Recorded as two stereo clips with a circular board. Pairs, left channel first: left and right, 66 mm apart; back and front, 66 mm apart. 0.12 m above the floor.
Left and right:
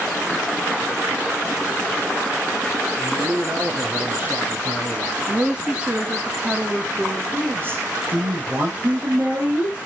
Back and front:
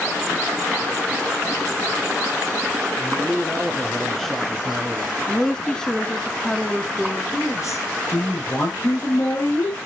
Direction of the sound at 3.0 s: 130° right.